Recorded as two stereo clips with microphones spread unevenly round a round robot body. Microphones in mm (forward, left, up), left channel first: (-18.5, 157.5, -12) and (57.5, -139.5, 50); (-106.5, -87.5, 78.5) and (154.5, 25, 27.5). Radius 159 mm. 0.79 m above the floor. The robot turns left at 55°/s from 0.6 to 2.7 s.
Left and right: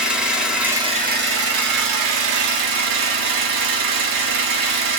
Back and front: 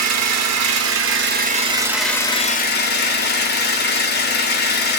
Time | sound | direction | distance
0.0 | an engine running | 15° left | 1.4 m